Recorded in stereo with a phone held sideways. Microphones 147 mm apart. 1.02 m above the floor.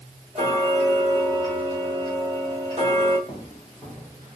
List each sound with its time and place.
0.3 s ticking: 50° right (ahead or behind), 1.0 m
3.3 s footsteps: 30° left (ahead or behind), 1.2 m; by 4.4 s 20° right (ahead or behind), 1.1 m